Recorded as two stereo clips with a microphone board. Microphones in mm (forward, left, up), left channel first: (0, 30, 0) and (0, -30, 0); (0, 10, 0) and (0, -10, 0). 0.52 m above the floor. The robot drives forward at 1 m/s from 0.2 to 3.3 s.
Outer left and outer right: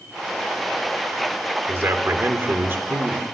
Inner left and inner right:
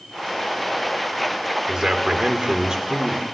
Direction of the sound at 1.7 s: 40° right (ahead or behind).